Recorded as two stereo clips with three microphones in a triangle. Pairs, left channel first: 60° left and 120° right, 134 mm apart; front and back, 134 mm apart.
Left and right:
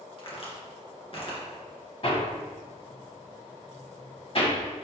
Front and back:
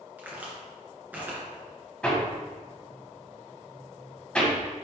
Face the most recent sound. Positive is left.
turn(degrees=80)